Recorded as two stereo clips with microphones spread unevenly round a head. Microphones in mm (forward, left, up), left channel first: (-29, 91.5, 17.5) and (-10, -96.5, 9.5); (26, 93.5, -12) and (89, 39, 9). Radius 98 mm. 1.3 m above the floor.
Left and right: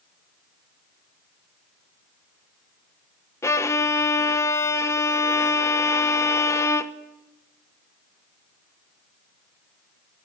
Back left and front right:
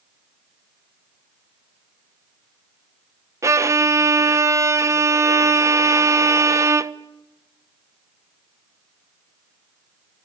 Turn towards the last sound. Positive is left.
turn(degrees=20)